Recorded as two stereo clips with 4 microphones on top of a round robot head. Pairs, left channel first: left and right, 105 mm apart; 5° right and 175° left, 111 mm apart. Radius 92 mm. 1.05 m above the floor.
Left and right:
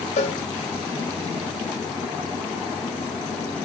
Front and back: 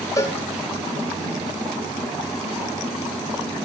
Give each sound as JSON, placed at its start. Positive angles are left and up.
{"t": 0.2, "sound": "a cowbell", "azimuth_deg": 55, "distance_m": 2.5}